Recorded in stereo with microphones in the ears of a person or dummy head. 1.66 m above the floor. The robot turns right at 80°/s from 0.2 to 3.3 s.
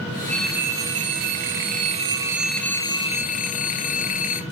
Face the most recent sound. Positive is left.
turn(degrees=55)